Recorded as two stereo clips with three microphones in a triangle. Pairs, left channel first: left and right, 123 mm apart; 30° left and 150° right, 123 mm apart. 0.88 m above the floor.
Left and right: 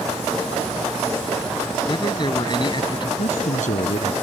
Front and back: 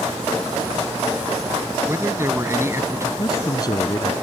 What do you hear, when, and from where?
1.9 s a man speaking: 140° left
3.2 s a man speaking: 90° left